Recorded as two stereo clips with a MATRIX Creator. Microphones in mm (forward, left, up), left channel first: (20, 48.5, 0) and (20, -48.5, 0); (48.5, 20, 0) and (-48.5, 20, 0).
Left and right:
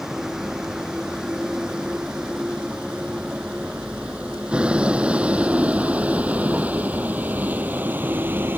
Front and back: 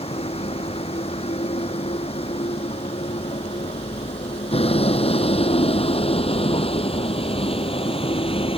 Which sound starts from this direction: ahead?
A vehicle, at 0.0 s.